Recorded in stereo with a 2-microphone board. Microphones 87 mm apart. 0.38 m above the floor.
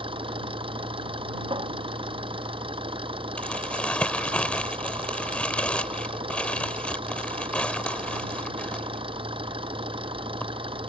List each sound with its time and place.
0.0 s an engine running: 75° right (ahead or behind)
1.5 s a cupboard door: 70° right (ahead or behind)
3.4 s crumpling: 15° left (ahead or behind)